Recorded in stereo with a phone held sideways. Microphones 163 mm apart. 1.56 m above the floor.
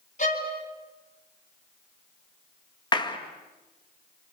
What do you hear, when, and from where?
0.2 s a violin: 45° left (ahead or behind), 4.5 m
2.9 s a clap: 25° left (ahead or behind), 2.0 m